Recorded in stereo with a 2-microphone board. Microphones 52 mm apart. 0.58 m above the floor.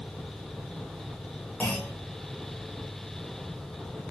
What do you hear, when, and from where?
1.6 s a clunk: 25° left (ahead or behind), 2.5 m